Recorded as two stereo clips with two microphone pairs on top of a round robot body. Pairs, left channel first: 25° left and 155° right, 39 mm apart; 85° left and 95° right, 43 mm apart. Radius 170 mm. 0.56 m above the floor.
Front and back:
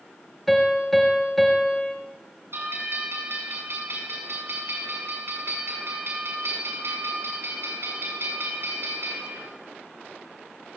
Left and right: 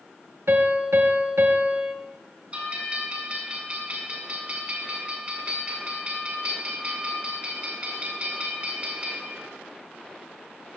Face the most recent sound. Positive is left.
turn(degrees=-150)